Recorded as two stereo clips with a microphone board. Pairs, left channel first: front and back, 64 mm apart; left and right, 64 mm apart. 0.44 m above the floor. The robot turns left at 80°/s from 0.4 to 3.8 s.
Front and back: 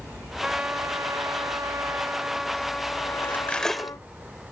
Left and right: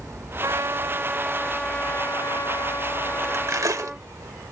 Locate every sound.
0.4 s a trumpet: 100° right; by 4.1 s 10° right
3.2 s cutlery clinking: 45° right; by 4.0 s 90° right